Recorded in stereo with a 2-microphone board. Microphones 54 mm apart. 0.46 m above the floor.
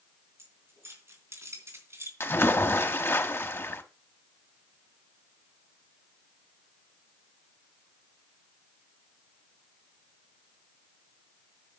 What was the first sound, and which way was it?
Keys jangling, 55° right (ahead or behind).